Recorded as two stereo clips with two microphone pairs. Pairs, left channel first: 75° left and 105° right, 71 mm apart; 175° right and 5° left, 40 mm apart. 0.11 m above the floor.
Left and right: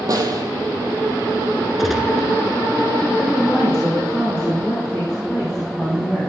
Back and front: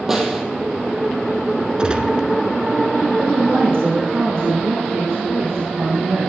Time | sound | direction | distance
0.1 | a snare drum | 75° right | 2.5 m
1.8 | a gunshot | 20° right | 1.4 m
3.2 | a woman speaking | 5° right | 5.5 m